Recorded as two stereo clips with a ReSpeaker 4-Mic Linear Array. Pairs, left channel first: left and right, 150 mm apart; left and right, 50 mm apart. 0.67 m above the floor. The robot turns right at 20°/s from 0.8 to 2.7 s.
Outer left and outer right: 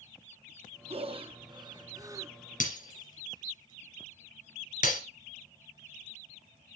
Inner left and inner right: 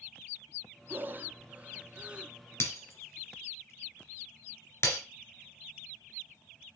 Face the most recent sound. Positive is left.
turn(degrees=65)  # may be behind; listen again after turning